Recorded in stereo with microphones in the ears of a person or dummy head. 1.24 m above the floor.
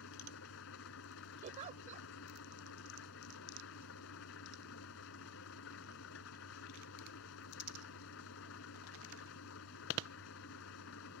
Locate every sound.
0.0 s an engine running: 70° left (ahead or behind)
1.4 s a giggle: 45° right (ahead or behind)